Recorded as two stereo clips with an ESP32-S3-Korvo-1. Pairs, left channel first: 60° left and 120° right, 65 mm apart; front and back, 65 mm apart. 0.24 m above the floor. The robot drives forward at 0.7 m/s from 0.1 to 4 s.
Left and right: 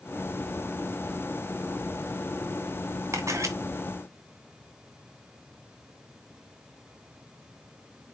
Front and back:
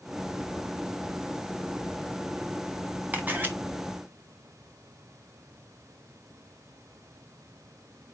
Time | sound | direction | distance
3.1 | a camera shutter | 125° right | 2 m